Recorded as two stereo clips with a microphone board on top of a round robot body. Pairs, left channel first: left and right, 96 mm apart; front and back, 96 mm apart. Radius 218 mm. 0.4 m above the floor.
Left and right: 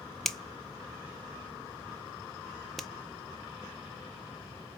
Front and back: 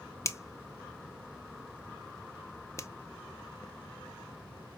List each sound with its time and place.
0.2 s a finger snap: 5° left, 1.0 m